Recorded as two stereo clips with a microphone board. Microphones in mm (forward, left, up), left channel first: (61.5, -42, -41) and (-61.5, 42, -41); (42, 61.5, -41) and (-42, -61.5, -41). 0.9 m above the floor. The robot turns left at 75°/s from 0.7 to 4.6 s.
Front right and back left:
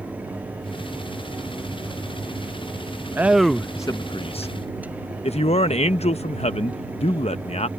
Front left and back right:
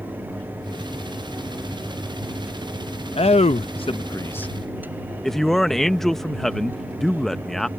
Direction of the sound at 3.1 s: 75° left.